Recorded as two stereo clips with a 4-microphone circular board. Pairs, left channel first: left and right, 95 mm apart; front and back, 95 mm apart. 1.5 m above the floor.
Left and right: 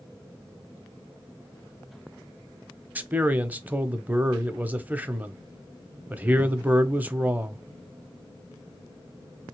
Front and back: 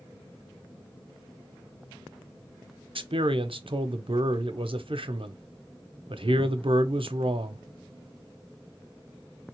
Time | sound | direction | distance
3.0 | a man speaking | 160° right | 0.7 m